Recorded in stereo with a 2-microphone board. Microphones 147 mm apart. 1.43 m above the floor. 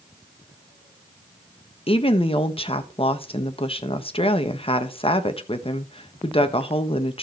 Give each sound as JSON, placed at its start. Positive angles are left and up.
{"t": 1.9, "sound": "a woman speaking", "side_deg": 40, "distance_m": 1.2}